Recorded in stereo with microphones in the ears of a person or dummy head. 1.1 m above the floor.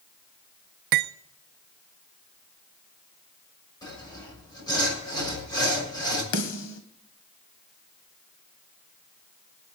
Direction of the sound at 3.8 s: 15° left (ahead or behind).